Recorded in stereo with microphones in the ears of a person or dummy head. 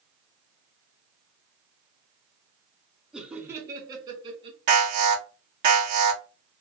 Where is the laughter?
Centre (ahead or behind), 0.9 m; by 4.6 s 30° right (ahead or behind), 1.5 m.